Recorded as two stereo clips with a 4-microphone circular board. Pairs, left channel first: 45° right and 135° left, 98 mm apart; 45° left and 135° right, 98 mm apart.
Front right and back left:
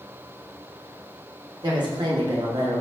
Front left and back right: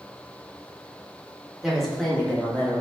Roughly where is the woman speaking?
Behind left.